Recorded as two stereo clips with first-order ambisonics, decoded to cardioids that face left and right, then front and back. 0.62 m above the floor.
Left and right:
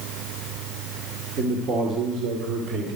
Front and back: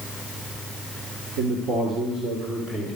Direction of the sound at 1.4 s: 145° right.